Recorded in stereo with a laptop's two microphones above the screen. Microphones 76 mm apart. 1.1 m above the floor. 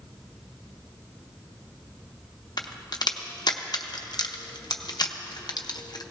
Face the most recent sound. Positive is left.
turn(degrees=65)  # may be behind; listen again after turning